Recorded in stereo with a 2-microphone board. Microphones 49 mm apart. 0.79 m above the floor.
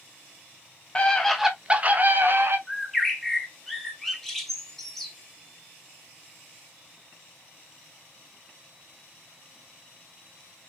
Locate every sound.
0.9 s a scream: 25° left (ahead or behind), 1.1 m; by 2.6 s 55° right (ahead or behind), 1.7 m
2.7 s a bird: 5° left (ahead or behind), 1.2 m